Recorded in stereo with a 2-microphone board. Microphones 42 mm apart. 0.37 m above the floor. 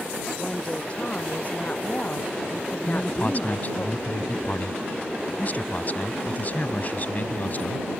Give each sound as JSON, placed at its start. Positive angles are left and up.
{"t": 0.4, "sound": "a woman speaking", "side_deg": 35}
{"t": 2.9, "sound": "a man speaking", "side_deg": 40}